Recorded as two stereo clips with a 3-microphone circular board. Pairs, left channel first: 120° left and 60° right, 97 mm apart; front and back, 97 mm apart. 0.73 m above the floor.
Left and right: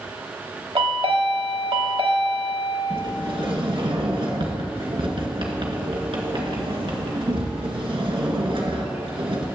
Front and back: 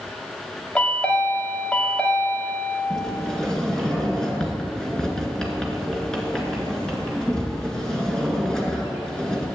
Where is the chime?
75° right, 1.3 m.